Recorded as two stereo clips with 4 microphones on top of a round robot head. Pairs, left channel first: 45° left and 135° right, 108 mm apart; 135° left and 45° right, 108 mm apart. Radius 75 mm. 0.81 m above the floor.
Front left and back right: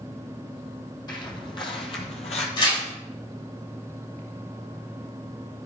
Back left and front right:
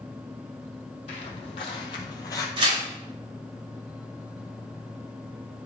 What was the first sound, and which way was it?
Footsteps, 100° left.